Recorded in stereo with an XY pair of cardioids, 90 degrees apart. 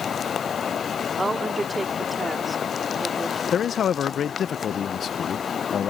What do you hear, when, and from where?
1.2 s a woman speaking: 30° right; by 3.4 s 10° right
3.5 s a man speaking: 60° left